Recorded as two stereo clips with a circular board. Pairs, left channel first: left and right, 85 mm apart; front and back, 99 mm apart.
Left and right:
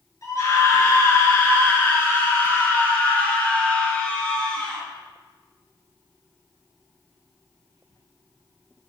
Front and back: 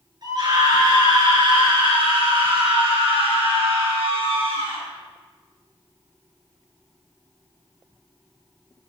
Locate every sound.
0.2 s a scream: 140° left, 4.5 m; by 4.8 s 170° left, 4.5 m